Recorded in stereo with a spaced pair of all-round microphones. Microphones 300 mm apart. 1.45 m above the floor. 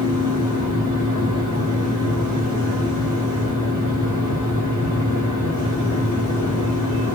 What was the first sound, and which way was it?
A fan, 70° left (ahead or behind).